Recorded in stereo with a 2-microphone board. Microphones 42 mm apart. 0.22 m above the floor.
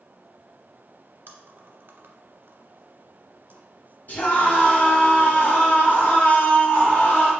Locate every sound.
1.3 s chewing: 55° right (ahead or behind), 1.3 m
4.1 s a scream: 45° left (ahead or behind), 1.5 m